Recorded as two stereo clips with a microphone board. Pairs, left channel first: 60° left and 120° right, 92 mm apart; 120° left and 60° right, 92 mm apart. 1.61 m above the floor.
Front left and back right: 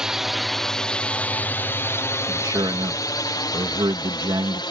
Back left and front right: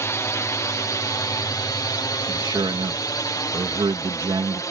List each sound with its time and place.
0.0 s a drone: 160° left; by 4.7 s 75° left
2.3 s a man speaking: 85° right